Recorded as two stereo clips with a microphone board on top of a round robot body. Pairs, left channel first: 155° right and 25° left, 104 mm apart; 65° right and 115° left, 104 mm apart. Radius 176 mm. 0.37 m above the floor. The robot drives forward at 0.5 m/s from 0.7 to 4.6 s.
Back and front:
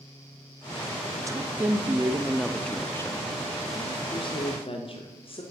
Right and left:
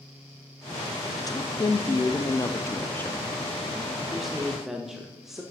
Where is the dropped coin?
I don't hear a dropped coin.